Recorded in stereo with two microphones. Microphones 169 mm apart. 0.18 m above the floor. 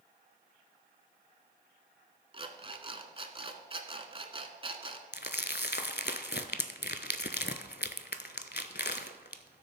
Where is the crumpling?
75° left (ahead or behind), 0.6 m.